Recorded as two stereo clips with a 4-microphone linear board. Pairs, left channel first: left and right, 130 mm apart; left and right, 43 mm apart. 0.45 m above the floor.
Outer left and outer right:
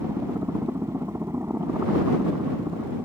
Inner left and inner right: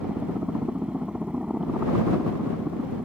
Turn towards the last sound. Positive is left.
turn(degrees=-20)  # may be behind; listen again after turning